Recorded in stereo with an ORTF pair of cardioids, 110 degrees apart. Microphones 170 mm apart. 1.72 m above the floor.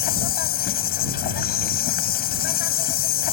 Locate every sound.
0.0 s an insect: 65° left